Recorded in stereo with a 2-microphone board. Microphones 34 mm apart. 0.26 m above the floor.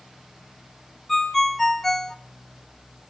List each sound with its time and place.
1.1 s a ringtone: 5° left (ahead or behind), 1.6 m